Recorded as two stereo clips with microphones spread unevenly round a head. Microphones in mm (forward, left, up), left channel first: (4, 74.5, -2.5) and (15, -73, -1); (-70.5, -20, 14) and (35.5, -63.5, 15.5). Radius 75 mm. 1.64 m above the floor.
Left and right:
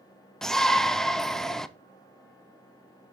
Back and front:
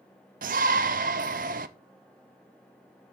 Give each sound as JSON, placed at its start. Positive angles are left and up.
{"t": 0.4, "sound": "a shout", "azimuth_deg": 5, "distance_m": 0.6}